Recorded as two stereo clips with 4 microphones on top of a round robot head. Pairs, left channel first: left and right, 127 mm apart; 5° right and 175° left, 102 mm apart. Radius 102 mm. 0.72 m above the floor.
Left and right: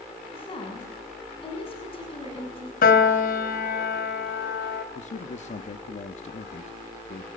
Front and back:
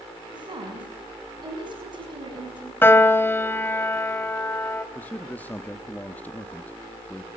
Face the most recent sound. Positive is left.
turn(degrees=70)